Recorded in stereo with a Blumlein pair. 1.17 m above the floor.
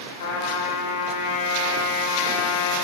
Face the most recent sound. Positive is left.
turn(degrees=65)